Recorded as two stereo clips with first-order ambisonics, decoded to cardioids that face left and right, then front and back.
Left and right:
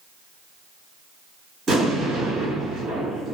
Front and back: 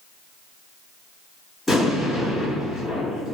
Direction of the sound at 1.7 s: 90° right.